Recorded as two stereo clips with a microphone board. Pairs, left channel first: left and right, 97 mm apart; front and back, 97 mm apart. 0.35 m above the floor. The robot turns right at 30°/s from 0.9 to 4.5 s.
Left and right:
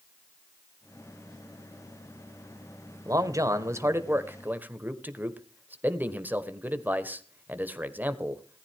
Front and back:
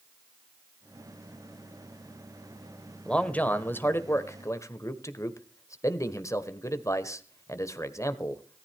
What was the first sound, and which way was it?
A man speaking, 75° right.